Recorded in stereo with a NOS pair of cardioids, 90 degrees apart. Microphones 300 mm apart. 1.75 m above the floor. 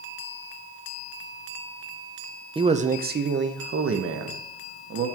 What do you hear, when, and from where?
2.5 s a man speaking: 15° right, 0.7 m; by 5.1 s 55° right, 1.8 m